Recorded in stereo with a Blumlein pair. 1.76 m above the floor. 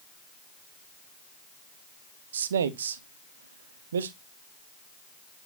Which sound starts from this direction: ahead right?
A man speaking, at 2.3 s.